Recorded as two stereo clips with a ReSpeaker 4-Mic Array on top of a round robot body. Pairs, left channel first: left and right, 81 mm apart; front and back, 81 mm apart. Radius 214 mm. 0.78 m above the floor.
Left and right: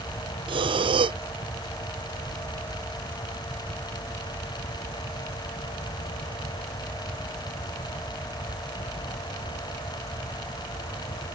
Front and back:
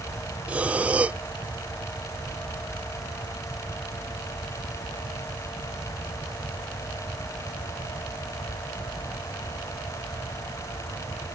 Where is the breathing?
105° right.